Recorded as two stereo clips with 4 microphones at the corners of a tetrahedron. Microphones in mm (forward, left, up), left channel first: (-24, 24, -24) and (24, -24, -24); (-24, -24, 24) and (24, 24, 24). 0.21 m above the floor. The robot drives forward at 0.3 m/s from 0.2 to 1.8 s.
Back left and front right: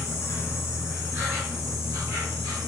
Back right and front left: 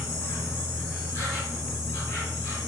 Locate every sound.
0.0 s an insect: 175° left, 1.2 m